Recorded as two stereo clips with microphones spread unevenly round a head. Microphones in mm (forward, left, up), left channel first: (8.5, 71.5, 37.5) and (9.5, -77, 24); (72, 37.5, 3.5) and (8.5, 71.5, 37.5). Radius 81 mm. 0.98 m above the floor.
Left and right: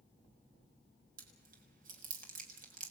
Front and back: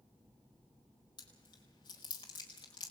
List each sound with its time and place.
1.2 s chewing: 55° right, 4.5 m